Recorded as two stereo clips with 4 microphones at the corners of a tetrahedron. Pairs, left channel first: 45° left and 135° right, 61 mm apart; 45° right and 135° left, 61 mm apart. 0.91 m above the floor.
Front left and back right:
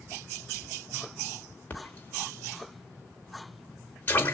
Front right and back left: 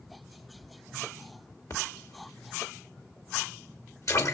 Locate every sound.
1.7 s a splash: 15° right, 3 m